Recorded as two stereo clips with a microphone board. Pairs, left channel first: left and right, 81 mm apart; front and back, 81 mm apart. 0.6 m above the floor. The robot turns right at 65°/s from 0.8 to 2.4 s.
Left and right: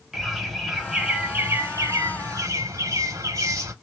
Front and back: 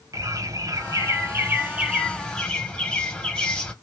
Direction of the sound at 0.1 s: 175° right.